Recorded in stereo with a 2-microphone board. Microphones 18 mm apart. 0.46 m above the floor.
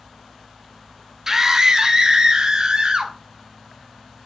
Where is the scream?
25° right (ahead or behind), 1.7 m; by 3.1 s 50° right (ahead or behind), 3.5 m.